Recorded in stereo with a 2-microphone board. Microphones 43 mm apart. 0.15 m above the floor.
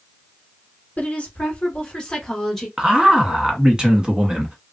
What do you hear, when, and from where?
1.0 s a woman speaking: 40° left (ahead or behind), 1.5 m; by 2.7 s 5° left (ahead or behind), 1.6 m
2.8 s a man speaking: 20° right (ahead or behind), 1.1 m